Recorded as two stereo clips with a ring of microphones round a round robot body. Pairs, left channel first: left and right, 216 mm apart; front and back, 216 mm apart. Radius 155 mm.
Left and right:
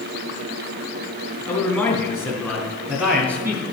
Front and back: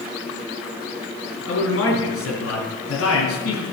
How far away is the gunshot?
I don't hear a gunshot.